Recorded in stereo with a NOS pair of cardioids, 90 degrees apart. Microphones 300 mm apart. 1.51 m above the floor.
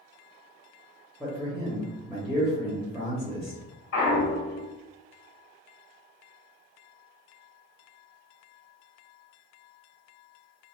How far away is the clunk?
About 1.4 m.